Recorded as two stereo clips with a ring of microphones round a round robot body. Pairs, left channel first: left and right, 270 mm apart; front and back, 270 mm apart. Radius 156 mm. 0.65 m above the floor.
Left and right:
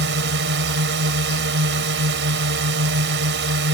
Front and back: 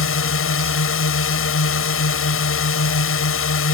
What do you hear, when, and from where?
0.0 s a drone: 35° right